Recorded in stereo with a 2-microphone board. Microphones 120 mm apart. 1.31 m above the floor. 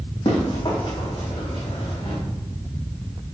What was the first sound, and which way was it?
Running footsteps, 45° left (ahead or behind).